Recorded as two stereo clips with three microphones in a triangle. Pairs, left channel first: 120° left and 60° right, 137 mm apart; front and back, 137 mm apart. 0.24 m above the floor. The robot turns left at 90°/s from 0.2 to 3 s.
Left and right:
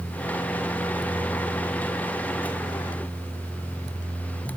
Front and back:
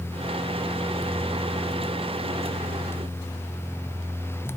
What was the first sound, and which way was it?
Only background noise.